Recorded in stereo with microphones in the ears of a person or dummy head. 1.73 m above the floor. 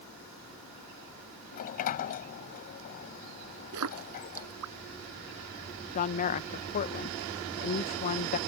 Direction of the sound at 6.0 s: 45° left (ahead or behind).